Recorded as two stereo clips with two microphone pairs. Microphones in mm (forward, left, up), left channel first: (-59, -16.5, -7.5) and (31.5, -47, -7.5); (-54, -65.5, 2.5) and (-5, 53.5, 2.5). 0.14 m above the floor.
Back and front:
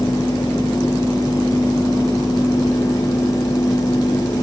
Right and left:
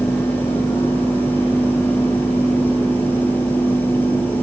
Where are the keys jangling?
I don't hear keys jangling.